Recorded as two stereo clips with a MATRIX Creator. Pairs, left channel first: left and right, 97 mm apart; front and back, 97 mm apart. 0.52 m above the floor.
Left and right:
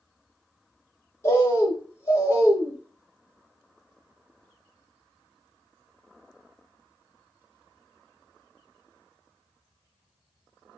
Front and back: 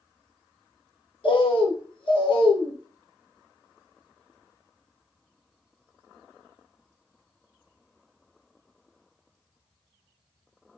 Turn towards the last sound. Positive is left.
turn(degrees=25)